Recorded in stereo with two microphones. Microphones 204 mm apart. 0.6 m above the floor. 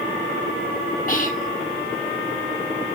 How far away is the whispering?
About 2 m.